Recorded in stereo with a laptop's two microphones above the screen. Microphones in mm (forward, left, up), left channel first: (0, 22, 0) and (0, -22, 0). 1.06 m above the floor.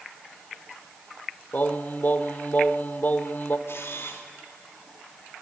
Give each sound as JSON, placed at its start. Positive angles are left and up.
{"t": 1.5, "sound": "singing", "side_deg": 45, "distance_m": 1.2}
{"t": 3.7, "sound": "a camera shutter", "side_deg": 70, "distance_m": 3.0}